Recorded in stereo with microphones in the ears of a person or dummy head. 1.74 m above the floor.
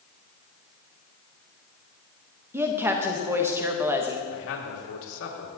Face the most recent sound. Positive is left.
turn(degrees=80)